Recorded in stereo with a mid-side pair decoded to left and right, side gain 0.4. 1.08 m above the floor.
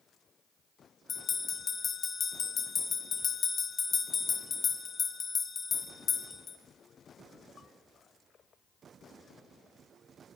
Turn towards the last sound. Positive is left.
turn(degrees=45)